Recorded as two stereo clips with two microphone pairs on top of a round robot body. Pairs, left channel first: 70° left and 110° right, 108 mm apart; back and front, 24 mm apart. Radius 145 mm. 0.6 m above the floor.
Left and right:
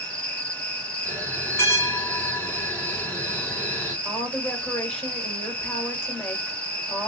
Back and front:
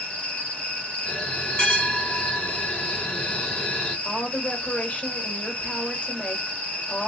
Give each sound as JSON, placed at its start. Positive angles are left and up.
{"t": 0.0, "sound": "an insect", "azimuth_deg": 150, "distance_m": 1.7}
{"t": 1.1, "sound": "a bell", "azimuth_deg": 140, "distance_m": 3.5}
{"t": 4.0, "sound": "a woman speaking", "azimuth_deg": 150, "distance_m": 3.5}